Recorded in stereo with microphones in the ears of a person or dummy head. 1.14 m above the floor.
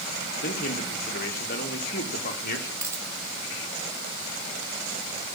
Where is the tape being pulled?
I don't hear tape being pulled.